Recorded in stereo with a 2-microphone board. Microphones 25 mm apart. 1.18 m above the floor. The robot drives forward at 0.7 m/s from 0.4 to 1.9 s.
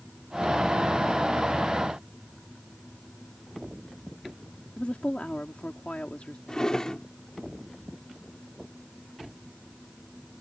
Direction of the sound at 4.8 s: 75° left (ahead or behind).